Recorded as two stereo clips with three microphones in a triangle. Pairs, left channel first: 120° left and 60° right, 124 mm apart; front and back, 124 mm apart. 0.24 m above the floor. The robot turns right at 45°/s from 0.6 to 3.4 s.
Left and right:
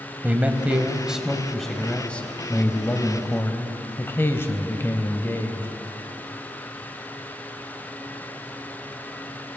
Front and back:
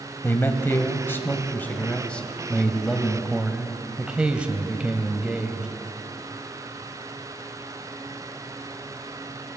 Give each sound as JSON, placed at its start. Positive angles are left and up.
{"t": 0.2, "sound": "a man speaking", "azimuth_deg": -10, "distance_m": 1.0}